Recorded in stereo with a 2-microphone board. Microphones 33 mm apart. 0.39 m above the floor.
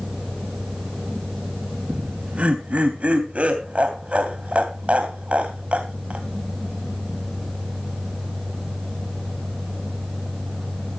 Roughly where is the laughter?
Right.